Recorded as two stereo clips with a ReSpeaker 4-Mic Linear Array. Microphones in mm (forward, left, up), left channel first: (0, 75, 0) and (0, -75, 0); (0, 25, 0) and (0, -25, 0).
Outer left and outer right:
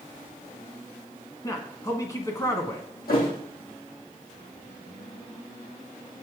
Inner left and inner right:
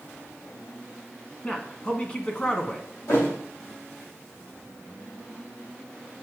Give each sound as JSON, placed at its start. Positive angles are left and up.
{"t": 1.4, "sound": "a man speaking", "side_deg": 20, "distance_m": 1.1}
{"t": 3.1, "sound": "a thud", "side_deg": 80, "distance_m": 3.0}